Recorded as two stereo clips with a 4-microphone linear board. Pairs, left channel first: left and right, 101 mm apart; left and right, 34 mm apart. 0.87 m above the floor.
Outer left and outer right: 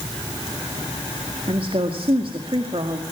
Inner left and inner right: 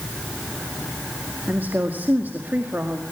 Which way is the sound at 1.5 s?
65° right (ahead or behind).